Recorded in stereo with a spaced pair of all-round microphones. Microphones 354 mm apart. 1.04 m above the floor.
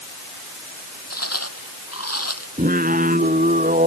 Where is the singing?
20° right (ahead or behind).